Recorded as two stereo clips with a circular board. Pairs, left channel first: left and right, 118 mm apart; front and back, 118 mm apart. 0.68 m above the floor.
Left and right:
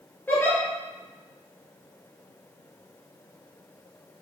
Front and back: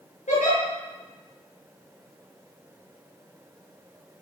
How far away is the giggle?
About 5.5 m.